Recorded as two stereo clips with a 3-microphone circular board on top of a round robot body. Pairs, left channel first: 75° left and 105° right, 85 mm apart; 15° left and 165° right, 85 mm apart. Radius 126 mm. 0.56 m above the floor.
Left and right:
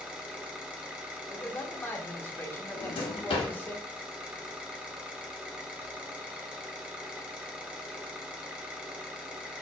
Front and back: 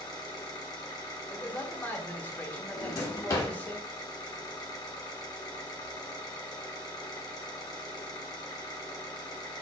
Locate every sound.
0.0 s an engine running: 30° right, 0.9 m
1.3 s a man speaking: 50° left, 1.0 m
2.8 s a drawer: 70° left, 0.7 m